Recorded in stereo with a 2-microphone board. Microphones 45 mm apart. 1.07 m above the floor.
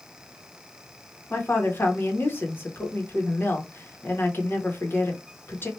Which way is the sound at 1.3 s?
45° left (ahead or behind).